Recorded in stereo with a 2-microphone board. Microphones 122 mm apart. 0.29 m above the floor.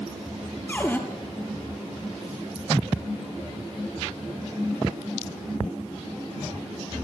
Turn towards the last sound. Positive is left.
turn(degrees=15)  # may be behind; listen again after turning